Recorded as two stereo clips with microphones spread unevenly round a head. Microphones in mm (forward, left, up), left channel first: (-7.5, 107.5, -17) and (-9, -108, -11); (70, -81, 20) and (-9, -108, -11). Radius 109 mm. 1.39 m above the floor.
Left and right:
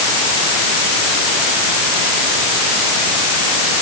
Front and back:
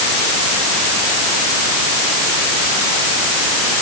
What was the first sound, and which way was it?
Only background noise.